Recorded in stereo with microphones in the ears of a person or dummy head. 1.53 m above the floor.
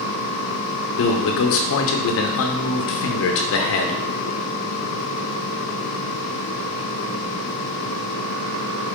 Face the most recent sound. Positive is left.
turn(degrees=60)  # may be behind; listen again after turning